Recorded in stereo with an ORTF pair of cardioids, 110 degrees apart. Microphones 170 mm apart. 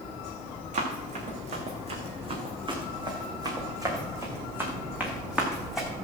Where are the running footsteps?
50° right, 4 m; by 5.9 s straight ahead, 3.5 m.